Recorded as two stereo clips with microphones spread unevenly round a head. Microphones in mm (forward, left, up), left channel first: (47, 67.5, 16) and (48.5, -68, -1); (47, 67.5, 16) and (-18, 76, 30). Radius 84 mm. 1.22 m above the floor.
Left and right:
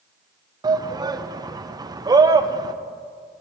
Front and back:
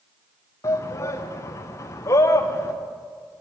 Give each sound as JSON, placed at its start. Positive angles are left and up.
{"t": 0.6, "sound": "a shout", "azimuth_deg": -35, "distance_m": 1.1}